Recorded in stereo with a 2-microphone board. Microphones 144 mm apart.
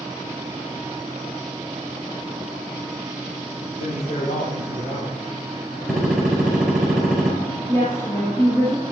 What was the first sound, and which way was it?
A man speaking, 60° left (ahead or behind).